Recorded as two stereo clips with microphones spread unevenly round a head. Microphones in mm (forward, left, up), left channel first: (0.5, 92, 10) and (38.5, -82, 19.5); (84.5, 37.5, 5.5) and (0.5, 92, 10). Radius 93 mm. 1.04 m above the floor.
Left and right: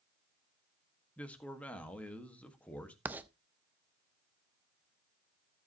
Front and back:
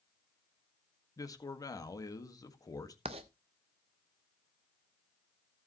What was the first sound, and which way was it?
A man speaking, 20° left.